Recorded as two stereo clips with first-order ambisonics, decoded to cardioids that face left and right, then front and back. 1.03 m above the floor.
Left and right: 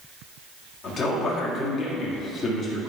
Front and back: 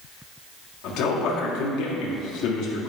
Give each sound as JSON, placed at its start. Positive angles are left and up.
{"t": 0.8, "sound": "a man speaking", "azimuth_deg": 30, "distance_m": 1.7}